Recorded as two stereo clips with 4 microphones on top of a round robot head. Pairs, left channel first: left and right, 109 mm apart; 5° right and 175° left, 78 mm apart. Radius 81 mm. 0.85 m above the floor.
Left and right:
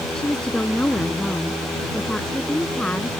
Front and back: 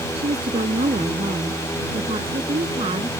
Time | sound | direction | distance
0.1 | a woman speaking | 175° left | ?